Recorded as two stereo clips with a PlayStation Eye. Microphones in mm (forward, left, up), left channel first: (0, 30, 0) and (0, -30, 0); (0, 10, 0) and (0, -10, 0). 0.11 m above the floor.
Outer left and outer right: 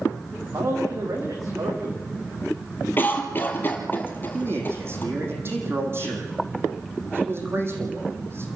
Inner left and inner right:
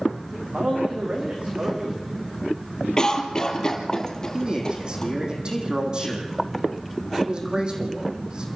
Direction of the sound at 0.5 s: 70° right (ahead or behind).